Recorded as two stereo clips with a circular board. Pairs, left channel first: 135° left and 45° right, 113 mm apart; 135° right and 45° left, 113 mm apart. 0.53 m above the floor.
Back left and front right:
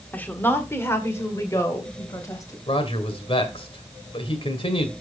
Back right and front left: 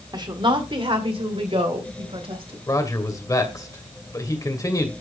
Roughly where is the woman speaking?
Ahead left.